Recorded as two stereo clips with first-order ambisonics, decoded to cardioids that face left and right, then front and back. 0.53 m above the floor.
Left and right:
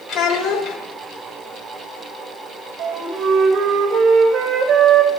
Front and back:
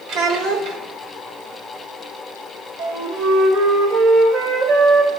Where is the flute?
140° right, 1.6 m.